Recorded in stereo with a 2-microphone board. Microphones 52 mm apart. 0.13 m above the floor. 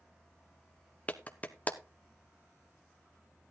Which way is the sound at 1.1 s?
25° left (ahead or behind).